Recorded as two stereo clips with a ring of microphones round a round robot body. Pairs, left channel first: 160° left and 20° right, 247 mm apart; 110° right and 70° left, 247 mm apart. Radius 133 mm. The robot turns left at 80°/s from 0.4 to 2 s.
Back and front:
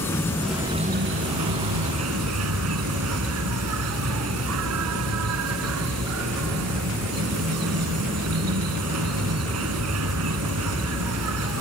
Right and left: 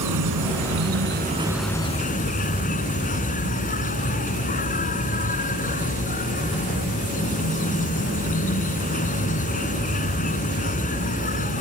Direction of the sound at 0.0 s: 75° left.